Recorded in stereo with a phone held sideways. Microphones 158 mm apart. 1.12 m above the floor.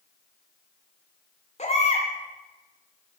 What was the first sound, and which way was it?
A baby crying, 45° left (ahead or behind).